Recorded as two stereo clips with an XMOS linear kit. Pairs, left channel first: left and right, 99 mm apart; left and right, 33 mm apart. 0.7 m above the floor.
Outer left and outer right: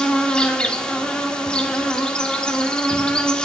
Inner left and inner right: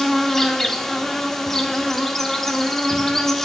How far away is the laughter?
No laughter in this recording.